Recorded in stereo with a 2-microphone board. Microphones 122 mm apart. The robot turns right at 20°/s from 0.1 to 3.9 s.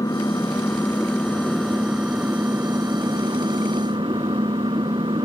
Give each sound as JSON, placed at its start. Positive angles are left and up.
{"t": 0.0, "sound": "an engine running", "azimuth_deg": 150}